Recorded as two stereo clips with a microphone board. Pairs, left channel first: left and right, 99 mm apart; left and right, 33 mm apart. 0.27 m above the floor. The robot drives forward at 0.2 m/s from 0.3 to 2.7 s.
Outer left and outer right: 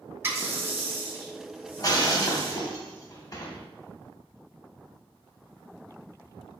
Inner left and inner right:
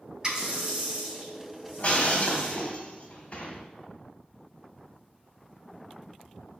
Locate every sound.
0.2 s a running tap: 25° right (ahead or behind), 1.1 m; by 2.7 s 20° right (ahead or behind), 1.5 m
1.8 s breaking glass: 40° left (ahead or behind), 0.7 m; by 3.6 s 35° left (ahead or behind), 0.8 m